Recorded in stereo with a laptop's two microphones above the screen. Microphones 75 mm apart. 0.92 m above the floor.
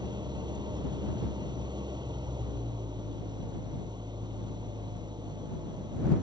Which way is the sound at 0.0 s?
75° right (ahead or behind).